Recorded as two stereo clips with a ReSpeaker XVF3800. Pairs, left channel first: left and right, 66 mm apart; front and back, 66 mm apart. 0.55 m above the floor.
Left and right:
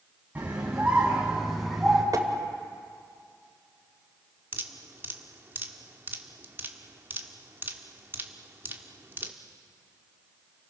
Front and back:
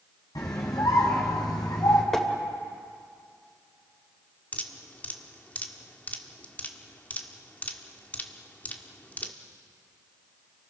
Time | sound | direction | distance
0.3 | a scream | 25° right | 4.5 m
2.1 | tapping | 80° right | 2.5 m
4.5 | dripping | 55° right | 1.6 m